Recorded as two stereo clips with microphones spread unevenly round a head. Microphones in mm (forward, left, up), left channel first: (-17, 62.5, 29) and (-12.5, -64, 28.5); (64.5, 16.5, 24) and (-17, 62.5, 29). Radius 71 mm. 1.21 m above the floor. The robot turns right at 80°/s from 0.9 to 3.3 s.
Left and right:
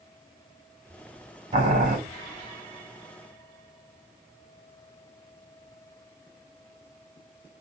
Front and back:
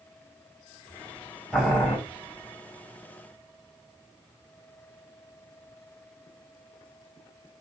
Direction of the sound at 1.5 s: 125° right.